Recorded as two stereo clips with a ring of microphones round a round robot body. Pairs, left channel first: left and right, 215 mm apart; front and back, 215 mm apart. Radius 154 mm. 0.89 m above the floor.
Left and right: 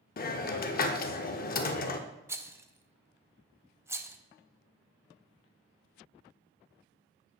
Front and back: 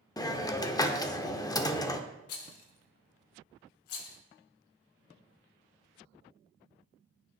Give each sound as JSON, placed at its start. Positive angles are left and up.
{"t": 0.2, "sound": "a hiss", "azimuth_deg": 65, "distance_m": 0.6}
{"t": 2.3, "sound": "a rattle", "azimuth_deg": -10, "distance_m": 0.8}